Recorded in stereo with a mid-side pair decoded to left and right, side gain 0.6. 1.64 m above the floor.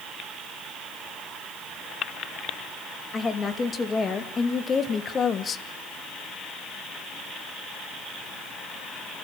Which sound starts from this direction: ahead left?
A woman speaking, at 3.1 s.